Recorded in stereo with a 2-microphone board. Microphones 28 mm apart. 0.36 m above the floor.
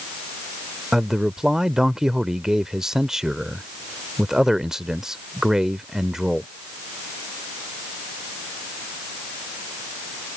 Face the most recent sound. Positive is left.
turn(degrees=-20)  # may be behind; listen again after turning